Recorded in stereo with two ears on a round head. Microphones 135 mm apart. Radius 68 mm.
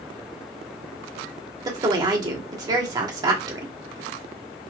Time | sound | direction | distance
1.6 | a woman speaking | 25° right (ahead or behind) | 1.6 m